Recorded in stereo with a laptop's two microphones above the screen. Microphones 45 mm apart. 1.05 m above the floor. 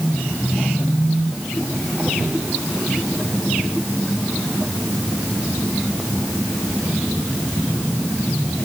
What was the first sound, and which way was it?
Only background noise.